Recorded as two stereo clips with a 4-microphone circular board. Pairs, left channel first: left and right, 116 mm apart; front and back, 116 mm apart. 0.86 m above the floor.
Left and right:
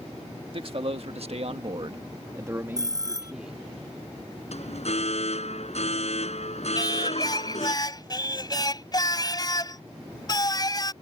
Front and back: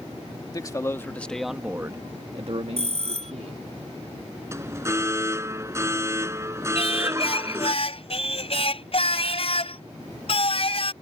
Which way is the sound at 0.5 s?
55° right.